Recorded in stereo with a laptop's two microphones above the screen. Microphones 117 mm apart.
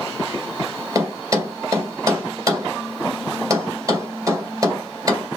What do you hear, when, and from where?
0.9 s a thud: 30° right (ahead or behind), 2.5 m